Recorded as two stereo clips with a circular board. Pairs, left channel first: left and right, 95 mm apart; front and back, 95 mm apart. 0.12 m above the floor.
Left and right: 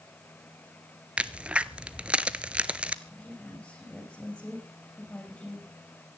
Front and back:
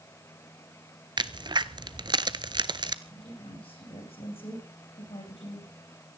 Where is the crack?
165° right, 0.8 m.